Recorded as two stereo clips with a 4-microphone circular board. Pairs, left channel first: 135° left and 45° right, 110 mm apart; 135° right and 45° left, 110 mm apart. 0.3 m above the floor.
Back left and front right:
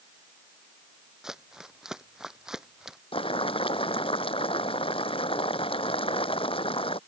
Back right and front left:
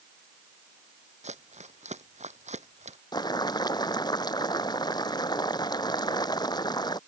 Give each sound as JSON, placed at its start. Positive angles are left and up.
{"t": 1.2, "sound": "crumpling", "azimuth_deg": 40}
{"t": 3.1, "sound": "boiling", "azimuth_deg": 175}